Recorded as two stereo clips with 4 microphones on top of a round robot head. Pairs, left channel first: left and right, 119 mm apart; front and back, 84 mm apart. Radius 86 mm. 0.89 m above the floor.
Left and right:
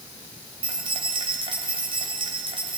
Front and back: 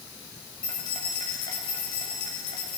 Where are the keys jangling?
45° right, 3.5 m.